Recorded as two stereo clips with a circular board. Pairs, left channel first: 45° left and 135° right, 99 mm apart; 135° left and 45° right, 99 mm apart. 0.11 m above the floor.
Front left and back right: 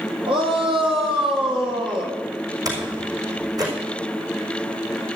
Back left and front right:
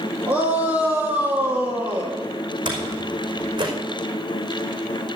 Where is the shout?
115° right, 4.5 m.